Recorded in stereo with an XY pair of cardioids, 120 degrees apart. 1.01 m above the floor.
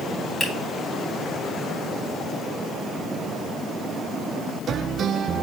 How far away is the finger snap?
About 3.5 m.